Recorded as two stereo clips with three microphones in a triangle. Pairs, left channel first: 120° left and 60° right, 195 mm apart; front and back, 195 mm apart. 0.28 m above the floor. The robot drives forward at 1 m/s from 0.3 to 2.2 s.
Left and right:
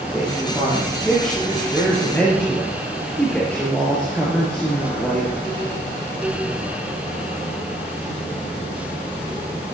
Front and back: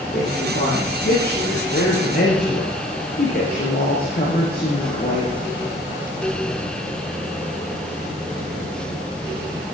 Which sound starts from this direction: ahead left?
A woman speaking, at 0.1 s.